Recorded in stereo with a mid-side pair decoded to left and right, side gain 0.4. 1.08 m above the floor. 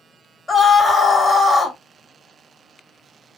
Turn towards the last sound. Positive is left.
turn(degrees=35)